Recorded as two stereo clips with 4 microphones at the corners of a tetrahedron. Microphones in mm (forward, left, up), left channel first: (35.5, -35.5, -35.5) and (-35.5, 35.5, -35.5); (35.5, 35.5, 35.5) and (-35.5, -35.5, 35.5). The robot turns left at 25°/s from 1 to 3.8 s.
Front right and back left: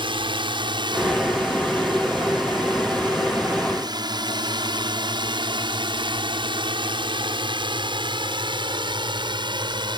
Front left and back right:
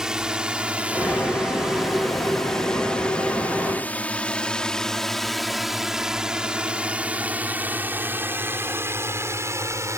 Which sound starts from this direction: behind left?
A drone, at 0.0 s.